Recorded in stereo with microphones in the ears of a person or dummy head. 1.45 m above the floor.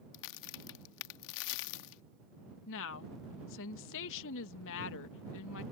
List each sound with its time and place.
0.1 s a crack: 60° left (ahead or behind)
2.7 s a woman speaking: 75° left (ahead or behind)